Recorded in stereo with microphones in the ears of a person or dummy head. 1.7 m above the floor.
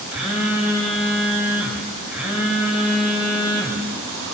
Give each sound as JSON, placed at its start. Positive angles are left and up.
{"t": 0.1, "sound": "a phone buzzing", "side_deg": 0, "distance_m": 2.0}